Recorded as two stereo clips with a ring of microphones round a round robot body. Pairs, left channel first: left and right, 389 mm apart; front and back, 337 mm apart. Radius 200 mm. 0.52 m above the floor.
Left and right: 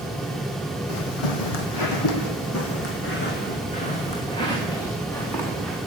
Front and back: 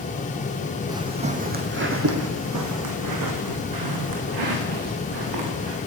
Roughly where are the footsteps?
Left.